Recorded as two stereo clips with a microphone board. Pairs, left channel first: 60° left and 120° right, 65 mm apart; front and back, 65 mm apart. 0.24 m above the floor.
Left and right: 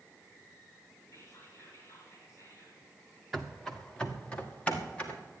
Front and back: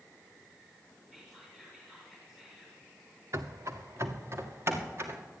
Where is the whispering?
95° left, 3 m.